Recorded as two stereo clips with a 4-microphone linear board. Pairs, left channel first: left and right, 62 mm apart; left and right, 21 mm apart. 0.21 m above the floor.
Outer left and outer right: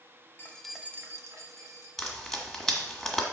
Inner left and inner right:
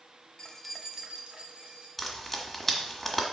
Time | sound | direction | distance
0.4 | keys jangling | 35° left (ahead or behind) | 0.7 m
2.0 | frying | 5° left (ahead or behind) | 1.5 m